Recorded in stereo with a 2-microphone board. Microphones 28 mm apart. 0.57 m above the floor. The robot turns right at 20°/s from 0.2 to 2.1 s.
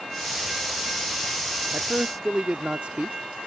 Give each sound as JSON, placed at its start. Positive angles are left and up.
{"t": 1.7, "sound": "a man speaking", "side_deg": -45}